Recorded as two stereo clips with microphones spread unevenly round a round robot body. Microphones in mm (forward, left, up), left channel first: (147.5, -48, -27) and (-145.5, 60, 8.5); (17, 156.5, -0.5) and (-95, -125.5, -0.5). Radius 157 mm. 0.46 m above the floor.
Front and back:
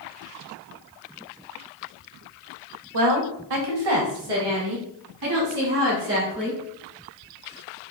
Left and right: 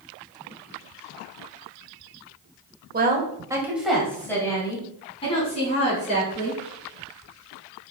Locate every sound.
2.9 s a woman speaking: 170° right, 1.6 m; by 6.6 s 135° left, 5 m